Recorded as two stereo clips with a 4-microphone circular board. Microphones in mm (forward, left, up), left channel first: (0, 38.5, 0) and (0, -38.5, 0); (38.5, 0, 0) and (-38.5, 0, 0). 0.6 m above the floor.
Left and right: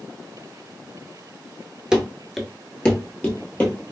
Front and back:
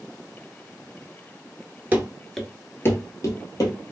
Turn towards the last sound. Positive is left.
turn(degrees=25)